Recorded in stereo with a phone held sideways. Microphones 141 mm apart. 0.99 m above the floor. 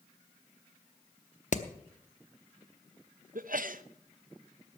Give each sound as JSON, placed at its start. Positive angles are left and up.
{"t": 1.5, "sound": "hammering", "side_deg": 60, "distance_m": 0.8}
{"t": 3.4, "sound": "a sneeze", "side_deg": -75, "distance_m": 0.7}